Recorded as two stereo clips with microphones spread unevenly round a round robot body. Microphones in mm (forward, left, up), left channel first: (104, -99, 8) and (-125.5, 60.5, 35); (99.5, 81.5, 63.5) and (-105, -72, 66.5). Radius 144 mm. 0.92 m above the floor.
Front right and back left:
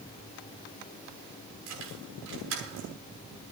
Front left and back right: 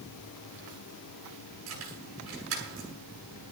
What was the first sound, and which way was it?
Keys jangling, straight behind.